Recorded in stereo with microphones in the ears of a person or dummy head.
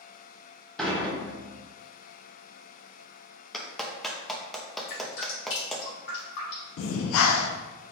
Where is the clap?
5° left (ahead or behind), 0.6 m.